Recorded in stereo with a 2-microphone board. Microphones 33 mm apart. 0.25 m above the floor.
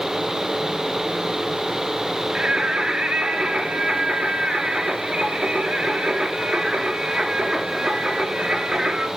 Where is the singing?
25° right (ahead or behind), 3 m.